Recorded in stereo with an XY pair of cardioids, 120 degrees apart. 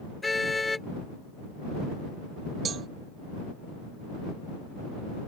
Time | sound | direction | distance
0.2 | a car horn | 15° left | ?
2.6 | a cowbell | 45° right | ?